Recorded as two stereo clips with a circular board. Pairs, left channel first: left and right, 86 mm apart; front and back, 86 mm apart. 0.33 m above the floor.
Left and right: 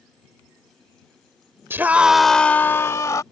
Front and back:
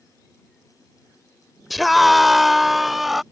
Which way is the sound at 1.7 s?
90° right.